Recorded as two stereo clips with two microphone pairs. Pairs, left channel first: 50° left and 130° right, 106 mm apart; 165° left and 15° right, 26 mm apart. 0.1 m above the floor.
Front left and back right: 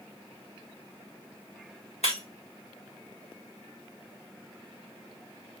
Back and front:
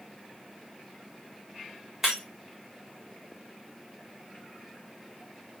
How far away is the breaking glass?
About 3.5 m.